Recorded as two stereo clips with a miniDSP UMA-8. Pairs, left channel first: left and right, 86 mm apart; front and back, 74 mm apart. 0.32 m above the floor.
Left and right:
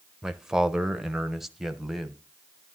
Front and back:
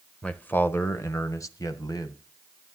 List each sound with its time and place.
0.2 s a man speaking: 25° right, 0.9 m; by 2.2 s straight ahead, 1.6 m